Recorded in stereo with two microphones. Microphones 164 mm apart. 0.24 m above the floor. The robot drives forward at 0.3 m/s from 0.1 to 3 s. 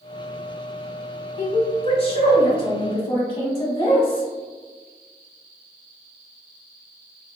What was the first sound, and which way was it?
A woman speaking, 40° left (ahead or behind).